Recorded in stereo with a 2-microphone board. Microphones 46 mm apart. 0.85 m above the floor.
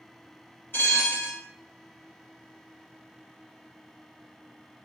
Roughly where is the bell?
Left.